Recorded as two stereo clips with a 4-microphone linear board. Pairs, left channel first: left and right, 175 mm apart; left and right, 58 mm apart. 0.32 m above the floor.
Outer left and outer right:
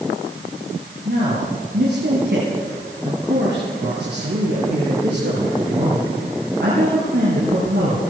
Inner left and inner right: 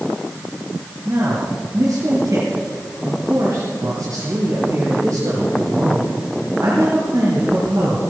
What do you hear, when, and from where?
1.1 s a man speaking: 70° right (ahead or behind), 6.5 m